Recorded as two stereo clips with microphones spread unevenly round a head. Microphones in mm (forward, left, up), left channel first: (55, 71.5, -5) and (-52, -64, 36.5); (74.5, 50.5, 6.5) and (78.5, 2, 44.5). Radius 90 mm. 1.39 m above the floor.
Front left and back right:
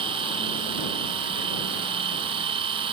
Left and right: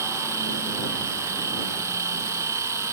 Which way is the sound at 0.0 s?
65° right.